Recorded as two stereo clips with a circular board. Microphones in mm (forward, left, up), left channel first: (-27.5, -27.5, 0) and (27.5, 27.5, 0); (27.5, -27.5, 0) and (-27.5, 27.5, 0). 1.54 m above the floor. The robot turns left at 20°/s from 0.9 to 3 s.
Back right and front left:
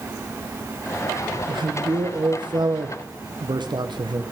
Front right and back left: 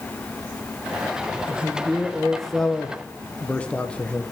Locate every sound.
1.5 s a man speaking: 60° left, 1.0 m; by 4.2 s 30° left, 1.0 m